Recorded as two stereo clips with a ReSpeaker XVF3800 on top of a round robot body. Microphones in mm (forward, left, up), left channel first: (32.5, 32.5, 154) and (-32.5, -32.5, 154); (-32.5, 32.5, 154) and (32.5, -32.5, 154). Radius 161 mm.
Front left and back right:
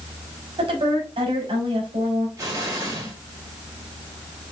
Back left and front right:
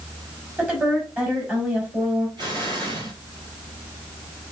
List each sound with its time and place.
0.6 s a woman speaking: 115° right, 3.5 m
2.4 s an explosion: 80° right, 4 m